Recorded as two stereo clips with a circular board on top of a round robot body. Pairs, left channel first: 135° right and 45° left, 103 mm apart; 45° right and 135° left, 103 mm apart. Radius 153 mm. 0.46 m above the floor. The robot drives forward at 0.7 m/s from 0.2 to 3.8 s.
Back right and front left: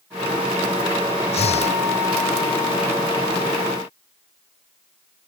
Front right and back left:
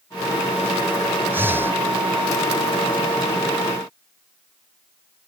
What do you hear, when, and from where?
1.3 s breathing: 155° right